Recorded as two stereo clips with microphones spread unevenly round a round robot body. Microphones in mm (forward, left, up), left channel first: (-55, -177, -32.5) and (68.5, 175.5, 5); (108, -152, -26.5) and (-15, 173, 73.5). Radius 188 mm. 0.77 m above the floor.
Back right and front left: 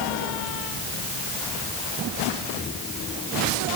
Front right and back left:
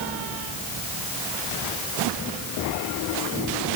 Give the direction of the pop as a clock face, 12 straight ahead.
No pop in this recording.